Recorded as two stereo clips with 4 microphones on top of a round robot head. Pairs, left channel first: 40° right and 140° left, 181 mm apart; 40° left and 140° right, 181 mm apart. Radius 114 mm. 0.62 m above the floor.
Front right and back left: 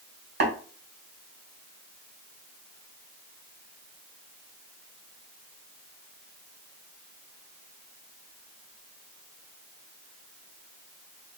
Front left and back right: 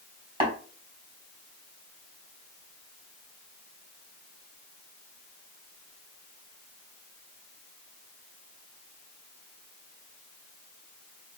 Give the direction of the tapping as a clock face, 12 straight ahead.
7 o'clock.